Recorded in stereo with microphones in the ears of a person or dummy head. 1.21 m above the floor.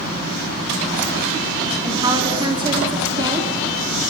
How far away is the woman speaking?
About 3.5 m.